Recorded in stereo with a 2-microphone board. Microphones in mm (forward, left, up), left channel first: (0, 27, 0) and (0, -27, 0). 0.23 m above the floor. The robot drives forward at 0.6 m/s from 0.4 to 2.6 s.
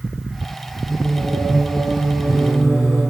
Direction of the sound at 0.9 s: 5° right (ahead or behind).